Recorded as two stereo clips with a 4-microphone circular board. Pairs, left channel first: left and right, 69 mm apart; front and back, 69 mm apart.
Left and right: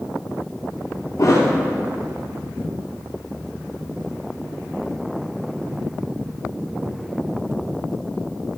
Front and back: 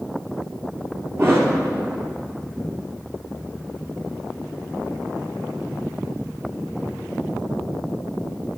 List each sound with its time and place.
1.2 s a thud: 130° left, 2.5 m